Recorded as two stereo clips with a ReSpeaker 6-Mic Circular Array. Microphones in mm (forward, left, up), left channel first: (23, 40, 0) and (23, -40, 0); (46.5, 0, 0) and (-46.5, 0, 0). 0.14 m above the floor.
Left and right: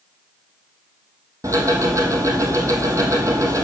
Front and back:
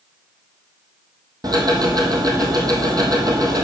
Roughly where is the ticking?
Behind right.